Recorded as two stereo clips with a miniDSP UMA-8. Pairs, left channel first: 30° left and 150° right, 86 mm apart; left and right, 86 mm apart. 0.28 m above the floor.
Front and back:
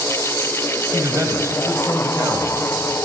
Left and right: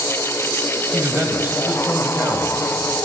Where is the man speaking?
135° right, 1.1 m.